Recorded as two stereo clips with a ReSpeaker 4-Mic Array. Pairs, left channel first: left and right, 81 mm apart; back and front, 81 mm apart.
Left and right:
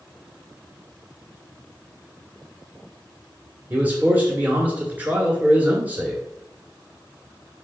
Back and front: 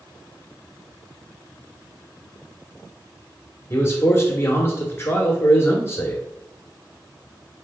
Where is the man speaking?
145° right, 1.4 m.